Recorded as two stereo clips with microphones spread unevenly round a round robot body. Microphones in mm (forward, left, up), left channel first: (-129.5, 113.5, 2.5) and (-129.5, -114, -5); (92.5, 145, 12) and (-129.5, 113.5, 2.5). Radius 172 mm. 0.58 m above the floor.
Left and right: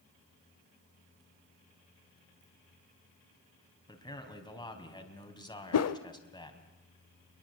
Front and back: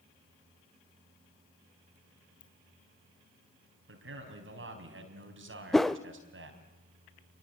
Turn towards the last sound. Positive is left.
turn(degrees=95)